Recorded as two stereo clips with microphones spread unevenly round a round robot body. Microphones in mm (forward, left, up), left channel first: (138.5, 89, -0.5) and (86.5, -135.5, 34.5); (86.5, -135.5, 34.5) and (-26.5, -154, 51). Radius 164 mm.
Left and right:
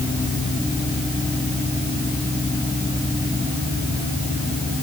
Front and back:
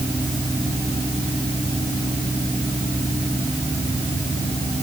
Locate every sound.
Only background noise.